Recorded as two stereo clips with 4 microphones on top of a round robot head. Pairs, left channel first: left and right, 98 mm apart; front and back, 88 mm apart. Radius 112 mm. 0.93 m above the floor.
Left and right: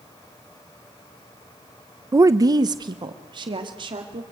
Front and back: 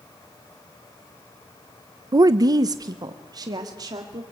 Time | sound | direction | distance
2.1 | a woman speaking | 145° right | 0.6 m